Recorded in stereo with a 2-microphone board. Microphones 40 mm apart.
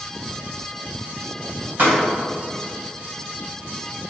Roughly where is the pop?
Right.